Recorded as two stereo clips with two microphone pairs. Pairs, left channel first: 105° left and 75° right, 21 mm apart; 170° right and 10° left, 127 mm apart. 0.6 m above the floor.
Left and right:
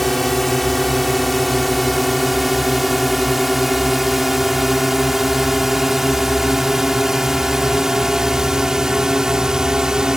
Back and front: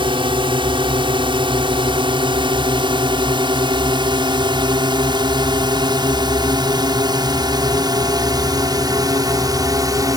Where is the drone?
30° left; by 10.2 s 30° right.